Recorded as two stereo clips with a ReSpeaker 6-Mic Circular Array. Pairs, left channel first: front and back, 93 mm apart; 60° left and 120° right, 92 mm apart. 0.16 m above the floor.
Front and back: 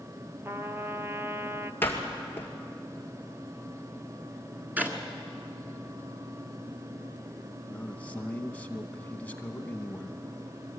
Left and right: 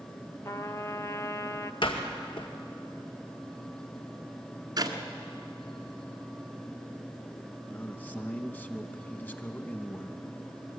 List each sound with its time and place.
0.5 s a trumpet: 115° left, 0.6 m
1.8 s a door slam: 65° left, 2 m
4.8 s a clap: 115° right, 1.6 m
7.7 s a man speaking: 40° left, 1.0 m